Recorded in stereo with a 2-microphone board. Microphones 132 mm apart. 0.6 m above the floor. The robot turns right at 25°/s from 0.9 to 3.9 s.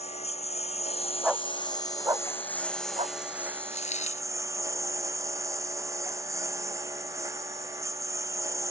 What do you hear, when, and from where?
0.0 s a lawn mower: 125° left; by 8.7 s 160° right
1.2 s a dog barking: 5° right (ahead or behind); by 3.2 s 50° right (ahead or behind)
3.7 s a dropped coin: 60° left (ahead or behind)